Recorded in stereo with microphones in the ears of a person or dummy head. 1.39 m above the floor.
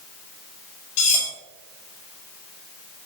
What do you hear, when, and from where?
1.0 s cutlery clinking: 40° left (ahead or behind), 1.6 m